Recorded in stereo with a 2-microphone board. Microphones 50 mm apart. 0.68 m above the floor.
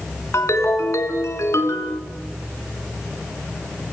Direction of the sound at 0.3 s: 85° left.